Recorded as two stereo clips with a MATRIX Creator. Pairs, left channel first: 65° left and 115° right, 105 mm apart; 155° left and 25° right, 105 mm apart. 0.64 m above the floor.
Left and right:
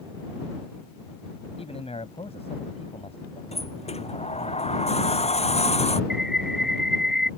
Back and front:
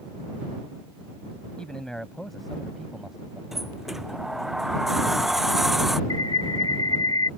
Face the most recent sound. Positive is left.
turn(degrees=165)